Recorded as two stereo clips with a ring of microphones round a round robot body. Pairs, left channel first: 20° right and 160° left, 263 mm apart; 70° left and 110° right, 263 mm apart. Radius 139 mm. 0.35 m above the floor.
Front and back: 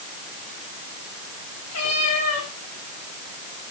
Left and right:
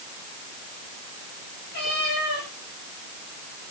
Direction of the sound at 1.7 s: 15° left.